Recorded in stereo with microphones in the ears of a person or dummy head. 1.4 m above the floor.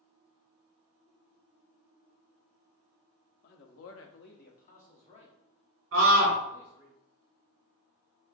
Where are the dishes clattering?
No dishes clattering in this recording.